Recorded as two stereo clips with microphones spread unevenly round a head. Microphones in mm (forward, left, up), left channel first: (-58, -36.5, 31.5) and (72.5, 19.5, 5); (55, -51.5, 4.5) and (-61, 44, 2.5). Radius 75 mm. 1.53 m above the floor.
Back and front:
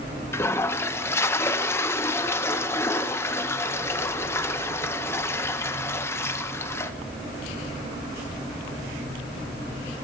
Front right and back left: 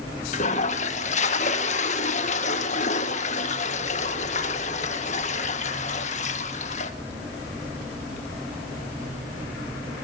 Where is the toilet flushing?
85° right, 1.8 m.